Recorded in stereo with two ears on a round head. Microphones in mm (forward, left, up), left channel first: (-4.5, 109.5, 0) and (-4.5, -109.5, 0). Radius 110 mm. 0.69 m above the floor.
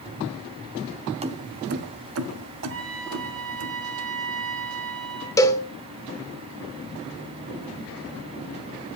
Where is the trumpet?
55° right (ahead or behind), 4.5 m.